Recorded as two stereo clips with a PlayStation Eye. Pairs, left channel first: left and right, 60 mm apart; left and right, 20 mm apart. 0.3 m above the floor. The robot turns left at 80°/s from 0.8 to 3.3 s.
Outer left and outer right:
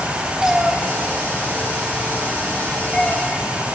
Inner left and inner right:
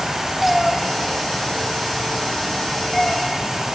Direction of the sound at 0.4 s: 10° right (ahead or behind).